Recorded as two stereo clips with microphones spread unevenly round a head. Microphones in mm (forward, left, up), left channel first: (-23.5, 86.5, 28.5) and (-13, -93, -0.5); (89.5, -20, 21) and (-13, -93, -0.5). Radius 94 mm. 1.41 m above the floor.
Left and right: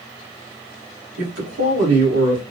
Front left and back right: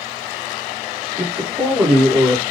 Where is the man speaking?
65° right, 1.8 m.